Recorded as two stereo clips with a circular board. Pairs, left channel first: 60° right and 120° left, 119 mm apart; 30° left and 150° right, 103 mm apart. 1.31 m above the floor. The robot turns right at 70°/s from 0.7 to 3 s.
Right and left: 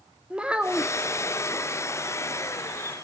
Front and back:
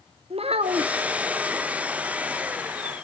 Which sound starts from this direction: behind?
A child speaking, at 0.3 s.